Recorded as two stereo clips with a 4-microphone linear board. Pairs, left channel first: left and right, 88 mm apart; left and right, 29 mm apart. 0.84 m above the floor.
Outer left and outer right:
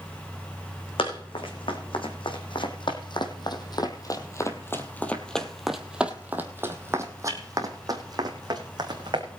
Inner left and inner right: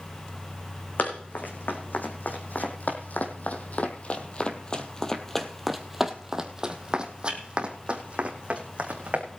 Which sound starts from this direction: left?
Running footsteps, at 1.0 s.